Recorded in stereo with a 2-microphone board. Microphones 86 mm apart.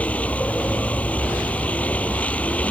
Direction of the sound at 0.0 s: 15° left (ahead or behind).